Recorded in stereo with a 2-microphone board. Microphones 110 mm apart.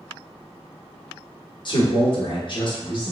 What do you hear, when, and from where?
1.6 s a man speaking: 45° left (ahead or behind), 0.8 m